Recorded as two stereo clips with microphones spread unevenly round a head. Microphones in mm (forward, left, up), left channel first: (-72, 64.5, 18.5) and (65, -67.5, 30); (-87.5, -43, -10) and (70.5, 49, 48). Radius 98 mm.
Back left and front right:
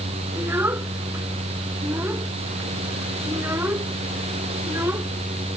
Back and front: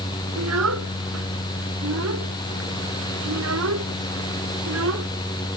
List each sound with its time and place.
0.4 s a child speaking: 35° left